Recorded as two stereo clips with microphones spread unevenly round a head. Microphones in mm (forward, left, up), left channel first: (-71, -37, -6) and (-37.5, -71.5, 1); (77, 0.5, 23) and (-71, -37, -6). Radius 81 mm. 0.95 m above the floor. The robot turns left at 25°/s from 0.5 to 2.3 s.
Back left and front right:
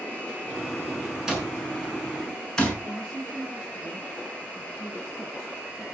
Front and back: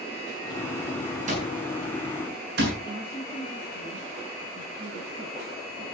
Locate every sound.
1.3 s an alarm clock: 120° right, 7.5 m; by 2.7 s 150° right, 7.5 m
2.8 s a woman speaking: 135° right, 7.5 m